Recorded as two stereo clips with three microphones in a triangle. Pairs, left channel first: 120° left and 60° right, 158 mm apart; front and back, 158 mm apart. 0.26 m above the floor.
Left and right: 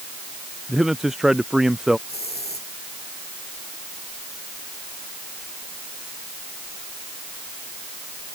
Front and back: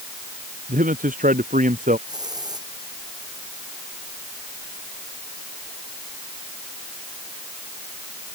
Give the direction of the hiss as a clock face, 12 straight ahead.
8 o'clock.